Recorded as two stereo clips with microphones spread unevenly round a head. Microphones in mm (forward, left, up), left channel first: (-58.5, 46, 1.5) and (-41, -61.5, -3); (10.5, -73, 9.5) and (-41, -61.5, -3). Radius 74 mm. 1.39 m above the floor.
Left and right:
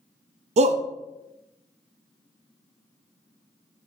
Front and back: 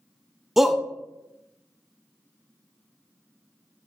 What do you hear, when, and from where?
0.6 s a shout: 105° right, 0.5 m